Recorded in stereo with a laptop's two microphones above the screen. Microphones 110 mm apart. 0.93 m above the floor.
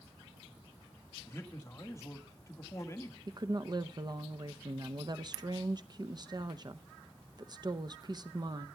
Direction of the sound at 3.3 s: 40° right (ahead or behind).